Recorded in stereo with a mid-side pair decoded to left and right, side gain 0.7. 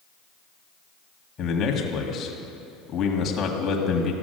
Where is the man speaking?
40° left, 1.7 m.